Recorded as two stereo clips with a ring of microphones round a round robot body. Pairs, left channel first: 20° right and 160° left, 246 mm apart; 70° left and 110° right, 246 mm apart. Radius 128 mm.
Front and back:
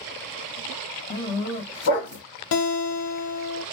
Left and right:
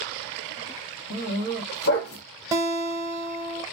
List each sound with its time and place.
1.1 s a dog barking: 20° left, 1.2 m
2.5 s a guitar: 35° right, 0.8 m